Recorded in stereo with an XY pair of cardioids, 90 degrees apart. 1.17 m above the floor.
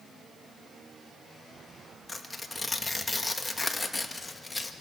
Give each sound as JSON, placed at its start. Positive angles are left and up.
{"t": 2.1, "sound": "tearing paper", "azimuth_deg": 20, "distance_m": 1.9}